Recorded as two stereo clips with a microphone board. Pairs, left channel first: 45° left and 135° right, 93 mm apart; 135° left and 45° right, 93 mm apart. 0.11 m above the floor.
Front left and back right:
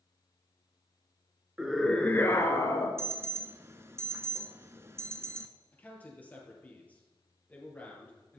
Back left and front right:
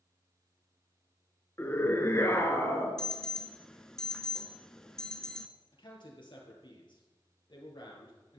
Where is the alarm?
150° right, 0.8 m.